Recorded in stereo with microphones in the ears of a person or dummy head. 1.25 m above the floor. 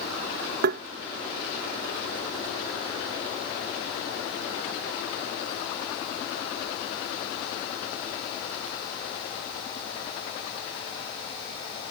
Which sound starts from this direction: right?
Tapping, at 0.6 s.